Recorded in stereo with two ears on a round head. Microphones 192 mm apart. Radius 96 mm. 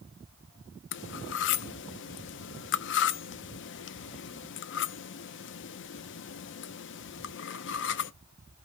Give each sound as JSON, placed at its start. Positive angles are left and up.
{"t": 0.9, "sound": "cutlery clinking", "side_deg": 60, "distance_m": 0.5}